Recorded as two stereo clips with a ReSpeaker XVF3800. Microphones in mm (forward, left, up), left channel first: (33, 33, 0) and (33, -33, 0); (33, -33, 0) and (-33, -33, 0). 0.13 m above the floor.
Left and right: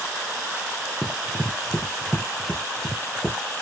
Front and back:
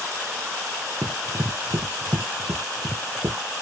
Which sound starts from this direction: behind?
Running footsteps, at 1.0 s.